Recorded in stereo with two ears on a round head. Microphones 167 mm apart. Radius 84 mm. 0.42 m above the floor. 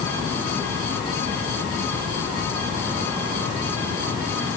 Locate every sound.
Only background noise.